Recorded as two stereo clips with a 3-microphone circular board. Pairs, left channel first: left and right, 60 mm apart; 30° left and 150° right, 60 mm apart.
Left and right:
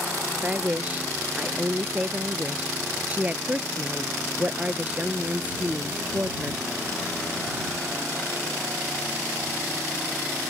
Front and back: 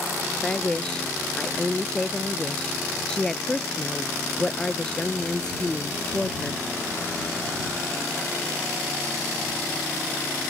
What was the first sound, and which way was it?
A woman speaking, 40° right.